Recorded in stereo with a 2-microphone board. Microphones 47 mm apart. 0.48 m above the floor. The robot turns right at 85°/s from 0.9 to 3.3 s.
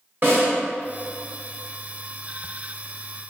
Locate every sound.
0.2 s a snare drum: 40° right (ahead or behind), 1.6 m